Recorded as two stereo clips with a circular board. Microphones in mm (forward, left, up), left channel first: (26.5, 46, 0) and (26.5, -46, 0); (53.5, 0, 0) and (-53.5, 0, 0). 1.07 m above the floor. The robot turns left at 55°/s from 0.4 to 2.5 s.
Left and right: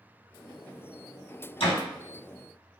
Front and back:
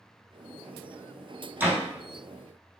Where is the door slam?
105° left, 1.7 m; by 1.8 s 95° left, 1.7 m.